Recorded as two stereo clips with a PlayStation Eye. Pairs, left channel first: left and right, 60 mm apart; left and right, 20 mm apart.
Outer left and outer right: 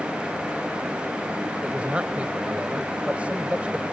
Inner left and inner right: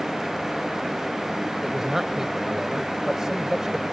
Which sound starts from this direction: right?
A man speaking, at 1.6 s.